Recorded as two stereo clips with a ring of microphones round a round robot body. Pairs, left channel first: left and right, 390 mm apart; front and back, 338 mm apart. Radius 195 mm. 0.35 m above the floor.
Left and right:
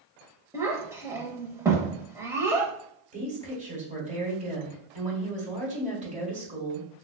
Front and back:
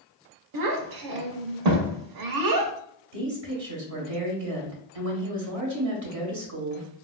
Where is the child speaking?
175° right, 0.7 m.